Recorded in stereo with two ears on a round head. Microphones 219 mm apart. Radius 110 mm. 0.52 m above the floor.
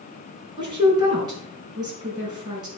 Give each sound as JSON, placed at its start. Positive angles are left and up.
{"t": 0.6, "sound": "a woman speaking", "side_deg": -20, "distance_m": 5.0}